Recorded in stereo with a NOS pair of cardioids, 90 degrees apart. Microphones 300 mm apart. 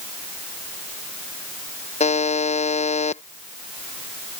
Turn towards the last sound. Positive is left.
turn(degrees=20)